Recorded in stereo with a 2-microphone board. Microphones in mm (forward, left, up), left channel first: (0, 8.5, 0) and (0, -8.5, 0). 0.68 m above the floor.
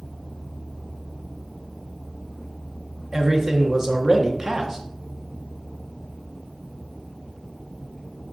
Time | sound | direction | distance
3.1 | a man speaking | 30° right (ahead or behind) | 1.2 m